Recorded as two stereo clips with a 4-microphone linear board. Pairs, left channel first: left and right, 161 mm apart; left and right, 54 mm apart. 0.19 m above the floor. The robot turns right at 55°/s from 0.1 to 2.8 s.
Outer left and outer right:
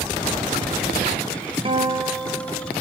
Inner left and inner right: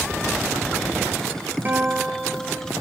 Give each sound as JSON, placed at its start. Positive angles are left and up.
{"t": 1.6, "sound": "a guitar", "azimuth_deg": -35, "distance_m": 2.0}